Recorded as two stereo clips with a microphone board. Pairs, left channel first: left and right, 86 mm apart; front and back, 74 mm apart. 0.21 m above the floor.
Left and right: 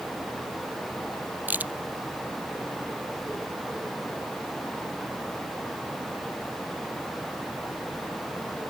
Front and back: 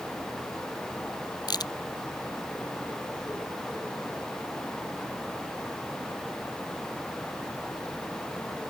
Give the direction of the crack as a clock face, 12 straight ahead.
1 o'clock.